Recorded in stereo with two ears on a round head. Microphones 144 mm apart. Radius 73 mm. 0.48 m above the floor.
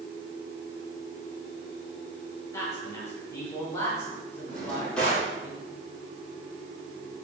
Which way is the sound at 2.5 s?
20° left (ahead or behind).